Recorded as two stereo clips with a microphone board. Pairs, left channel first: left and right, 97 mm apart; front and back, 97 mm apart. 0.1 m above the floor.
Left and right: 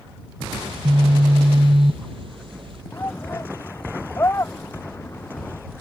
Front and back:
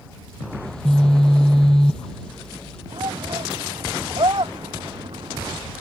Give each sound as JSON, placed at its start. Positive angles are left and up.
{"t": 0.6, "sound": "a phone buzzing", "azimuth_deg": -80}
{"t": 2.9, "sound": "a shout", "azimuth_deg": 150}